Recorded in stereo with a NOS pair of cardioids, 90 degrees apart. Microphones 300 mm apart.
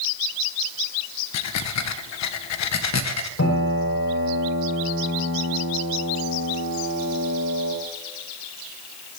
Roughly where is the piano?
Ahead left.